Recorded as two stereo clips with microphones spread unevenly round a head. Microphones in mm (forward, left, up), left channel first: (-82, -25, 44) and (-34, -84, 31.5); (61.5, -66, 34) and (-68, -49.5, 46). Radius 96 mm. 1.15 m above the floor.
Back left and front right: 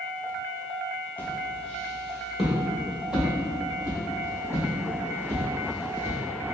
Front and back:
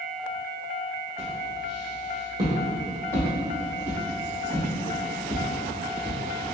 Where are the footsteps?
Straight behind, 1.5 m; by 6.2 s 105° right, 3 m.